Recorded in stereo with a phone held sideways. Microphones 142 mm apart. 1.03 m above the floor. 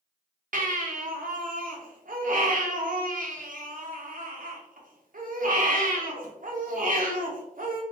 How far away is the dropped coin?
No dropped coin in this recording.